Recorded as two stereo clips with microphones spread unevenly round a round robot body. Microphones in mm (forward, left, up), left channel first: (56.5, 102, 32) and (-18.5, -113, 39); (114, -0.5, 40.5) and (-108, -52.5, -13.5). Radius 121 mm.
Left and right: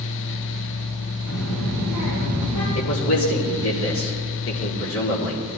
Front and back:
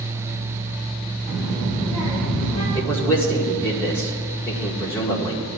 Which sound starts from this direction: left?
A man speaking, at 2.8 s.